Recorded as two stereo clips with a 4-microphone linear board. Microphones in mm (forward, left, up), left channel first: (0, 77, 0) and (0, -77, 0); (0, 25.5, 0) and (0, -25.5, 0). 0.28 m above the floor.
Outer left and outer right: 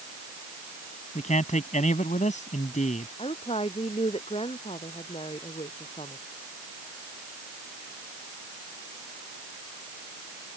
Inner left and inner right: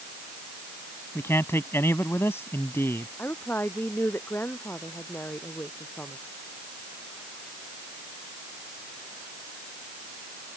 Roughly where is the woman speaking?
Left.